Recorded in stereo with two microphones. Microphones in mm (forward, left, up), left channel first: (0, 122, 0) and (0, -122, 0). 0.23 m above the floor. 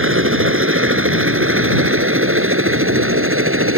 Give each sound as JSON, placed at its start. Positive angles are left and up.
{"t": 0.0, "sound": "a helicopter", "side_deg": -60}